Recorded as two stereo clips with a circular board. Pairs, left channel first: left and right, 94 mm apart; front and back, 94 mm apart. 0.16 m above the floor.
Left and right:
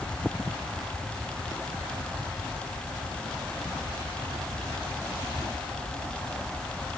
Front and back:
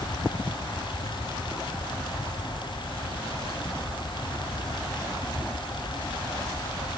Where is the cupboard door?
I don't hear a cupboard door.